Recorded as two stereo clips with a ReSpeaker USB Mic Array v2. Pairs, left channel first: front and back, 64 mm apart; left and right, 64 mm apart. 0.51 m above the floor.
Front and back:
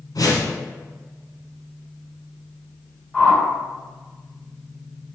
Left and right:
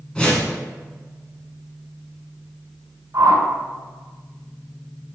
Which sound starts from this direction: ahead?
A whoosh, at 0.1 s.